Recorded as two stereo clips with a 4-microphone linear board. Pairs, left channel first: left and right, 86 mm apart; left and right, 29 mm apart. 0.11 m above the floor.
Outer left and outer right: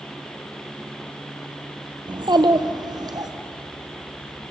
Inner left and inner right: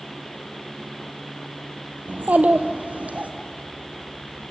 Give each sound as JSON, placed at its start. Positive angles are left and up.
{"t": 2.1, "sound": "a child speaking", "side_deg": -60, "distance_m": 1.8}